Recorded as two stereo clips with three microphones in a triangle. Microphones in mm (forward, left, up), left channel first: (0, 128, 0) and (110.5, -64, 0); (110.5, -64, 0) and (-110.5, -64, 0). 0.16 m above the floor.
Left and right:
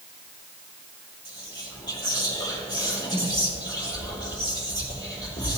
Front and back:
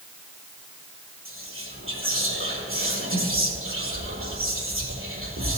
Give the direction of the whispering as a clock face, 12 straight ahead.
6 o'clock.